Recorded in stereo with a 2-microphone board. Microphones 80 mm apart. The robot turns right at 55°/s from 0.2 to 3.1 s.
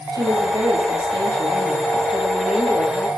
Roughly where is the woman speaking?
Behind right.